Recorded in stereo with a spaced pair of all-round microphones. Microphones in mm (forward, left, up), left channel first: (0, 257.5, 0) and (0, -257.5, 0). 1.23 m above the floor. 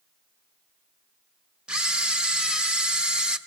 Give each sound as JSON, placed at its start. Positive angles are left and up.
{"t": 1.7, "sound": "a camera shutter", "side_deg": 0, "distance_m": 1.2}